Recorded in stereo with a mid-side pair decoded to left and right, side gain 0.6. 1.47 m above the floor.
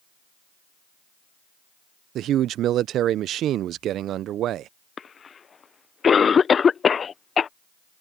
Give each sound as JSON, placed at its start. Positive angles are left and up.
{"t": 2.1, "sound": "a man speaking", "azimuth_deg": -55}
{"t": 5.0, "sound": "a cough", "azimuth_deg": 35}